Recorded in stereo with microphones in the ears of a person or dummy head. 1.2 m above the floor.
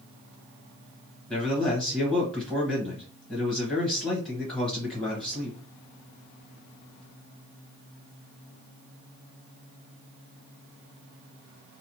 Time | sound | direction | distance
1.3 | a man speaking | 10° left (ahead or behind) | 1.1 m